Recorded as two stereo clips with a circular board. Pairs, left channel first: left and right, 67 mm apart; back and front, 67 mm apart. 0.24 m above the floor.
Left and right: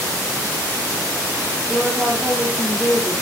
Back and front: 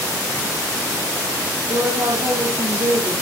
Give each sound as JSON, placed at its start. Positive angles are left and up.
{"t": 1.7, "sound": "a woman speaking", "azimuth_deg": -10, "distance_m": 7.5}